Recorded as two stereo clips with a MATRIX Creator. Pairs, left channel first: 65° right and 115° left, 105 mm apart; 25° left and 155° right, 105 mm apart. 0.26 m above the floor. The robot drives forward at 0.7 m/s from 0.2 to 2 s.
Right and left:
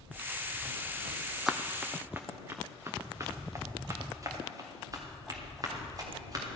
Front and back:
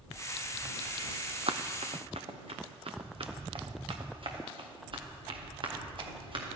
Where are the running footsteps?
155° right, 0.7 m; by 6.5 s 165° left, 3.5 m.